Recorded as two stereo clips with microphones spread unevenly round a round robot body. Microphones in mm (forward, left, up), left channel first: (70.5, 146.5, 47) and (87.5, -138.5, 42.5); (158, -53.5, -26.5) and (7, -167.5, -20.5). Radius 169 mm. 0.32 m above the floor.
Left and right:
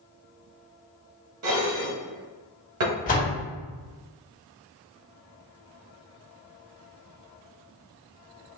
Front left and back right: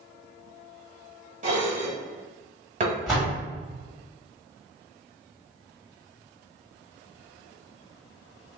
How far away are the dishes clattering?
About 1.4 m.